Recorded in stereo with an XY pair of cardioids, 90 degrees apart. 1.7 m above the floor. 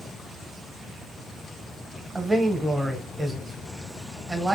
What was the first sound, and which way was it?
A man speaking, 20° right.